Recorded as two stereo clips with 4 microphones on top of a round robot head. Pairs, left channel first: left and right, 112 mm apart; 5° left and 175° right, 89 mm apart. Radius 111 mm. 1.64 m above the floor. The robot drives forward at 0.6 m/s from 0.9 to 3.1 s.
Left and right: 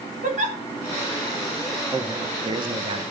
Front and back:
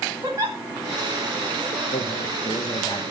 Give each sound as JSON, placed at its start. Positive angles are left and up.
{"t": 0.2, "sound": "a giggle", "azimuth_deg": -110, "distance_m": 1.0}
{"t": 1.9, "sound": "a man speaking", "azimuth_deg": -30, "distance_m": 1.2}